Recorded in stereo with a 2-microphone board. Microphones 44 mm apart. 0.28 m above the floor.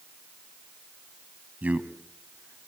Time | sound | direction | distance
1.6 | a man speaking | 35° right (ahead or behind) | 1.9 m